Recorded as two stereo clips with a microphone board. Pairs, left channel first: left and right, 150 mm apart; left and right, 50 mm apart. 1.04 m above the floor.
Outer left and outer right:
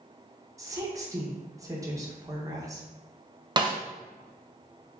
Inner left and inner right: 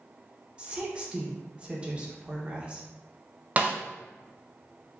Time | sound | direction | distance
0.6 | a woman speaking | 20° right (ahead or behind) | 0.8 m
3.6 | a snare drum | 30° right (ahead or behind) | 0.5 m